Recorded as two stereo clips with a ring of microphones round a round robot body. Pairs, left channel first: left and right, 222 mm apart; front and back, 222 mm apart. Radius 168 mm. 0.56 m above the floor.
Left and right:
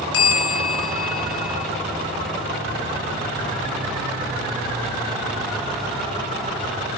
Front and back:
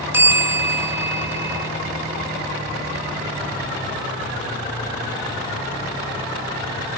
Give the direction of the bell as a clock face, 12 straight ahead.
9 o'clock.